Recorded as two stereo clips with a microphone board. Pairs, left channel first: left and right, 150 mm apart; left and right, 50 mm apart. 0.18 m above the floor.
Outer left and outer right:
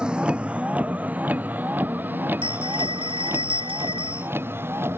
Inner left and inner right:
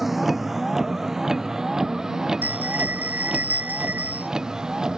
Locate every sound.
0.0 s a vehicle: 5° right (ahead or behind); by 5.0 s 15° right (ahead or behind)
2.4 s a bell: 35° right (ahead or behind)